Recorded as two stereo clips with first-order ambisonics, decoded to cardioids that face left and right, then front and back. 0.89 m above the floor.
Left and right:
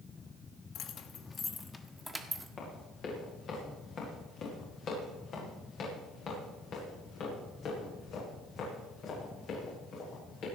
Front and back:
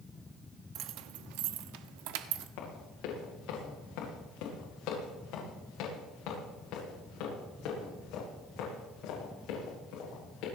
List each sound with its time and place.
0.8 s keys jangling: 140° left, 0.8 m; by 2.5 s 175° right, 1.3 m
2.6 s running footsteps: 30° left, 7.5 m; by 10.4 s 40° left, 11.5 m